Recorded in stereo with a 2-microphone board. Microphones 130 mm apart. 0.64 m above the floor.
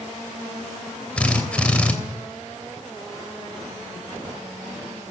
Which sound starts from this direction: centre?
A drill, at 1.2 s.